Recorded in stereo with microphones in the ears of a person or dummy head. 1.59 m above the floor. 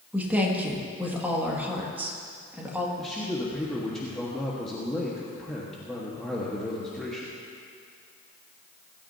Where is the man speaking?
5° left (ahead or behind), 1.6 m.